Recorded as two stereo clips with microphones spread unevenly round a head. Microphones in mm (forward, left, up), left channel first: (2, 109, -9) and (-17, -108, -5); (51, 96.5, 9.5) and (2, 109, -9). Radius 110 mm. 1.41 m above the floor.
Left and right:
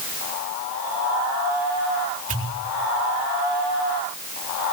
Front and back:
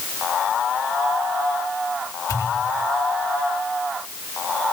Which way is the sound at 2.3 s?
35° right.